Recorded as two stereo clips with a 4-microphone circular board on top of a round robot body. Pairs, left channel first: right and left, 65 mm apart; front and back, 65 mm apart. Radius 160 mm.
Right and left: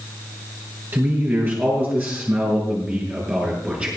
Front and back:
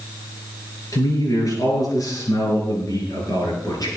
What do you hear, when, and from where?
0.9 s a man speaking: 35° left, 6.5 m; by 3.9 s 20° left, 6 m